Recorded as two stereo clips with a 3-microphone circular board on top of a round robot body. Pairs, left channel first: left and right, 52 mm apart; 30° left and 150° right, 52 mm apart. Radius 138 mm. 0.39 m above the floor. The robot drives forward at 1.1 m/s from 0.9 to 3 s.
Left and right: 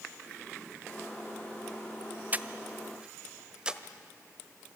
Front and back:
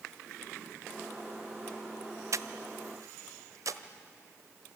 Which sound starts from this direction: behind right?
Breathing, at 2.3 s.